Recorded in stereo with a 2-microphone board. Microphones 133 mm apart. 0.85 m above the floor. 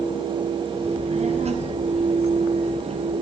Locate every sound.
0.8 s a child speaking: 55° right (ahead or behind), 4.5 m; by 3.1 s 50° right (ahead or behind), 6.5 m